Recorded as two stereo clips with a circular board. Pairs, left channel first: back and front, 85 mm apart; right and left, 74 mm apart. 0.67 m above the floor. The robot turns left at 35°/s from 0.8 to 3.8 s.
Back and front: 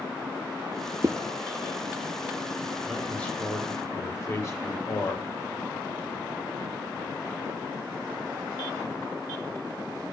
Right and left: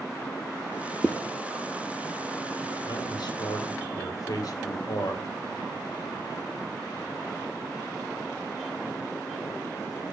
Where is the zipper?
20° right, 0.7 m; by 1.1 s 25° right, 0.7 m.